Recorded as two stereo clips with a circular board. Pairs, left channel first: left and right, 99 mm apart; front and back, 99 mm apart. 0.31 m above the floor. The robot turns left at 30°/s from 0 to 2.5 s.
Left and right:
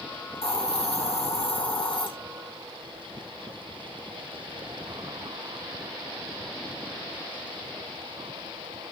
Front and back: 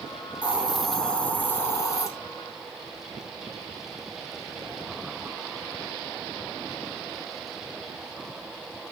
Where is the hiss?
105° left, 3.5 m; by 2.1 s 55° left, 3.5 m.